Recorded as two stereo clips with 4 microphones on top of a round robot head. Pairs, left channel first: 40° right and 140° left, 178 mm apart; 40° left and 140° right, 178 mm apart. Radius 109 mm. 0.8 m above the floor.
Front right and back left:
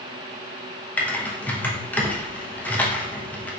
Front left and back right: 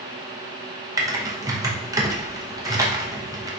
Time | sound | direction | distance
1.0 | typing on a keyboard | 105° right | 0.8 m